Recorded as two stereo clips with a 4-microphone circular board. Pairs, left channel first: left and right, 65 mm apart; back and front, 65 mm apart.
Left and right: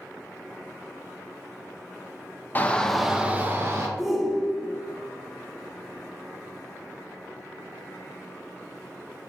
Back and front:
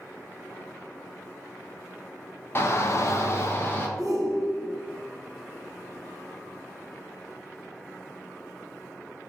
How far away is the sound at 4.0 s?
About 0.8 m.